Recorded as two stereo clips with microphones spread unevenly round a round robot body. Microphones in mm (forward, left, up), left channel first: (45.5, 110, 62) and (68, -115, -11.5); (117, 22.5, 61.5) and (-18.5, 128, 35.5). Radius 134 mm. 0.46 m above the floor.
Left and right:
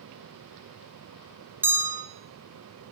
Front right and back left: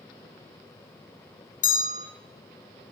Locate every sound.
1.6 s a bell: 35° right, 1.6 m